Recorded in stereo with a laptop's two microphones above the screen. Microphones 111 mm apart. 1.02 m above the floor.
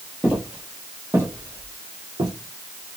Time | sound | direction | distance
0.2 | footsteps | 10° right (ahead or behind) | 1.6 m